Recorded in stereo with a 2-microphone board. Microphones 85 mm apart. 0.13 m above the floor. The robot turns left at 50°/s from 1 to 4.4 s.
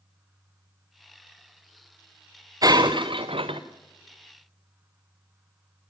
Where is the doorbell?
I don't hear a doorbell.